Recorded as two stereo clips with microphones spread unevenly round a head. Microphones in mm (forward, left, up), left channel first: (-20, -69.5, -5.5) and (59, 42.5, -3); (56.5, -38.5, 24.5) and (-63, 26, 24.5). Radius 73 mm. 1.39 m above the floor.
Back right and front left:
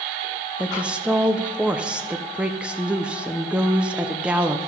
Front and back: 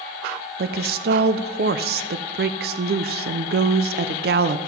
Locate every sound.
0.6 s a woman speaking: 140° left, 0.5 m